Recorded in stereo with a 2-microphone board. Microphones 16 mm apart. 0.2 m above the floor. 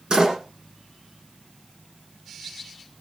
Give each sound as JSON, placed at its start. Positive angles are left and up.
{"t": 0.1, "sound": "a door slam", "side_deg": -50, "distance_m": 7.0}